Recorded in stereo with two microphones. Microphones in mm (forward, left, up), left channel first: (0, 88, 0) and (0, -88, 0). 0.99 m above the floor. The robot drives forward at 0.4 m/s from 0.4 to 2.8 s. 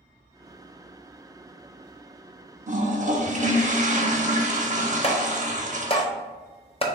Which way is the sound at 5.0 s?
35° left (ahead or behind).